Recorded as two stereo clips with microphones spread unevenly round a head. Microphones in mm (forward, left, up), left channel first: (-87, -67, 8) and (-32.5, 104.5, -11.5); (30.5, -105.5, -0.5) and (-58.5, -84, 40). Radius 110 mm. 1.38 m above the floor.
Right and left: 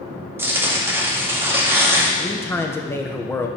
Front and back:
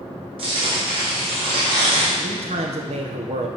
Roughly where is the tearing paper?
Behind left.